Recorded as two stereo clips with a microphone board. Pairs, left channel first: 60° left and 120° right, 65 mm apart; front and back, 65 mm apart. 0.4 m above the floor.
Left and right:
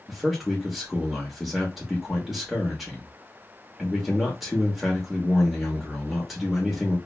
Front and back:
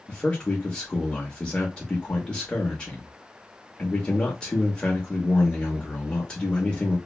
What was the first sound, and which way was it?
A man speaking, 45° right.